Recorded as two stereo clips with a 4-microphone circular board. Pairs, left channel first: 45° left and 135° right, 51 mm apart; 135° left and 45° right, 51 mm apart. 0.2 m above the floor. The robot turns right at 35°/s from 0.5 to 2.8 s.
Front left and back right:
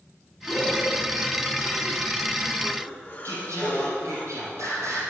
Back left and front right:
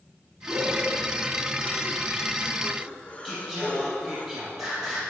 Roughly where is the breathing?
Ahead.